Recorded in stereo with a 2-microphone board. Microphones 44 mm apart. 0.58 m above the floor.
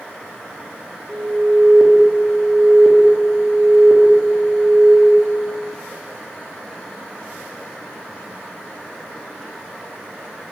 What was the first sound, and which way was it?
An alarm, centre (ahead or behind).